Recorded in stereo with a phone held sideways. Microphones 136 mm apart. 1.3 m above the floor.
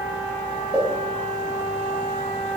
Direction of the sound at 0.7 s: 5° right (ahead or behind).